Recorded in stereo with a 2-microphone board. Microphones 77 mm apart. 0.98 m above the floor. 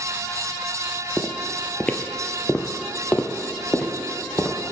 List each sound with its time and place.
1.2 s footsteps: 5° left (ahead or behind), 1.0 m; by 4.5 s 15° left (ahead or behind), 2 m